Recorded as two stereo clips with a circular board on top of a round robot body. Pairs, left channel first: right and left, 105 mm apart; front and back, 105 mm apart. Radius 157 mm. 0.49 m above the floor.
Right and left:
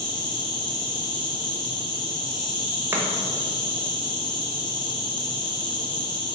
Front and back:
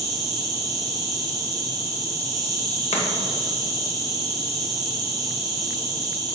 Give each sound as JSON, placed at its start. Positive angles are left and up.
{"t": 0.0, "sound": "an insect", "azimuth_deg": -130, "distance_m": 1.8}
{"t": 2.9, "sound": "chopping", "azimuth_deg": 25, "distance_m": 1.1}